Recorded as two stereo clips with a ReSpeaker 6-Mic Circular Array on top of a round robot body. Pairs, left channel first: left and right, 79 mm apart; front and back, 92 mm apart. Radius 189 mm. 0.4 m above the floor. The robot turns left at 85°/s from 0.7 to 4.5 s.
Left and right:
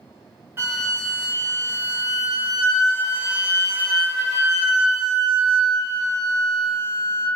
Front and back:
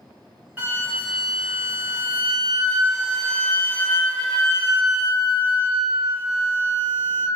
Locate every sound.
0.6 s a flute: 125° right, 1.7 m; by 7.3 s 90° right, 1.7 m